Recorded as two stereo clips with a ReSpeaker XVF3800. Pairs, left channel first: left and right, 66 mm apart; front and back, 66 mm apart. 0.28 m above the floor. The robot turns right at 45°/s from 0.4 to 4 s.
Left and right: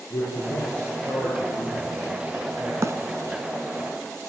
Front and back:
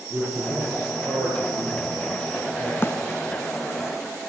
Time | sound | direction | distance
0.1 | a man speaking | 125° left | 6.5 m
2.8 | a bird | 50° right | 1.2 m